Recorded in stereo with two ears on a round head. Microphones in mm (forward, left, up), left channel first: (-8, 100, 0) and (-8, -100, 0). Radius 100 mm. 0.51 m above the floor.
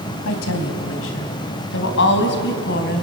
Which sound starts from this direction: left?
A woman speaking, at 0.2 s.